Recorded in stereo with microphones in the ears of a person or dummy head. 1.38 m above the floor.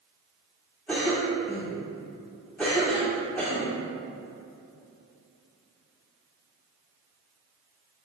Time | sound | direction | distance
0.9 | a cough | 5° left (ahead or behind) | 1.9 m